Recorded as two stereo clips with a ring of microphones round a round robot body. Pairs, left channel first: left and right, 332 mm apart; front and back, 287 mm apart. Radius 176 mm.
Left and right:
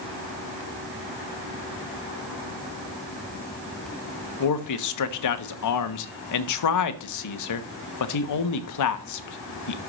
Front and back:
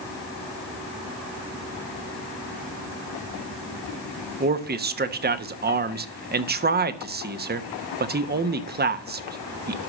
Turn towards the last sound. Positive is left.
turn(degrees=125)